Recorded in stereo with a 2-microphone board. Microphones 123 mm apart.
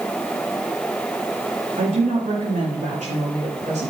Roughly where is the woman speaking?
Right.